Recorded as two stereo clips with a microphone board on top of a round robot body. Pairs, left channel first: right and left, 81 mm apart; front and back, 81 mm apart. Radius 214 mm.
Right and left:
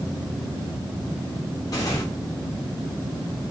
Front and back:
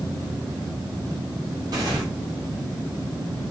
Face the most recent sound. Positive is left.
turn(degrees=-140)